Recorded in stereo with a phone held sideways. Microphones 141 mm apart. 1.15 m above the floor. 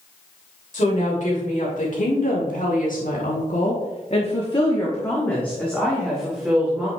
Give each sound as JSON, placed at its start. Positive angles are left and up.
{"t": 0.7, "sound": "a woman speaking", "side_deg": 60, "distance_m": 2.5}